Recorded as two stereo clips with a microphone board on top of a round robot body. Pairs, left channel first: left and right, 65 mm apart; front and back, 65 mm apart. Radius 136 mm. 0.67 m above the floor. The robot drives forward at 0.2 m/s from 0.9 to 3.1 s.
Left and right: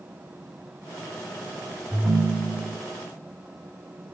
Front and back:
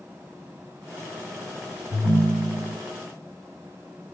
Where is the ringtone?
165° right, 1.7 m; by 2.8 s 170° right, 1.9 m.